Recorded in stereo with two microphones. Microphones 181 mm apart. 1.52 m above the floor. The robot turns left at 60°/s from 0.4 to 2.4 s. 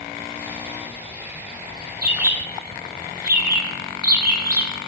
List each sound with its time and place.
2.0 s a bird: 55° right (ahead or behind), 1.7 m